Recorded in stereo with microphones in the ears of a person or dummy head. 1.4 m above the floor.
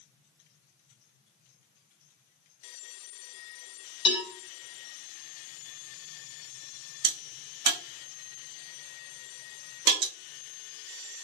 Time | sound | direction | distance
4.0 | a cowbell | 30° left (ahead or behind) | 1.0 m
7.0 | a crack | 45° right (ahead or behind) | 0.7 m